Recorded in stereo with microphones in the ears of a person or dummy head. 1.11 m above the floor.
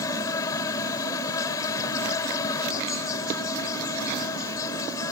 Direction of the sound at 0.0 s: 20° left (ahead or behind).